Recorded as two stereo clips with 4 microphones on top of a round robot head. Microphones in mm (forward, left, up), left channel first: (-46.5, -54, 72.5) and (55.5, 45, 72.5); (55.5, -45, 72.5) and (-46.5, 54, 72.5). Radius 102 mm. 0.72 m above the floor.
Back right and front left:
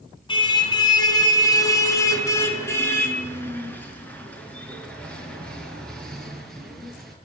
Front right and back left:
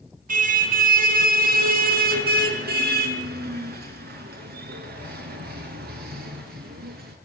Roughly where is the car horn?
Behind.